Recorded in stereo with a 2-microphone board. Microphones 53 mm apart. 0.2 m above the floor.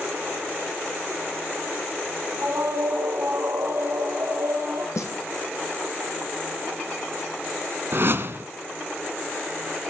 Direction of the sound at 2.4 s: 75° right (ahead or behind).